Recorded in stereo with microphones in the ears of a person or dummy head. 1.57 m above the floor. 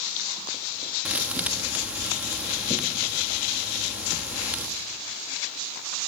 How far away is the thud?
About 1.2 m.